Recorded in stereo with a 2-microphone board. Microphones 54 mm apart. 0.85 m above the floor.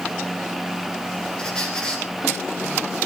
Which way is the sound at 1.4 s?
15° left (ahead or behind).